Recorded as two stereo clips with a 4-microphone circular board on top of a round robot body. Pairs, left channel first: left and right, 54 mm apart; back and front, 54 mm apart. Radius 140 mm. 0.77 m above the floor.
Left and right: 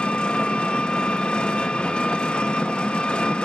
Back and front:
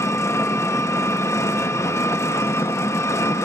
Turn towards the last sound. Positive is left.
turn(degrees=160)